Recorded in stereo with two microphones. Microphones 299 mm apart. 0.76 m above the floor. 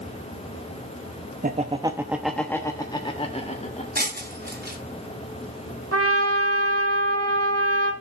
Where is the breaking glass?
30° right (ahead or behind), 3 m.